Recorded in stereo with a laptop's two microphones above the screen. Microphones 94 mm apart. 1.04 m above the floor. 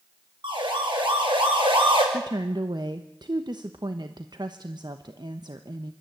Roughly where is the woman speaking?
Right.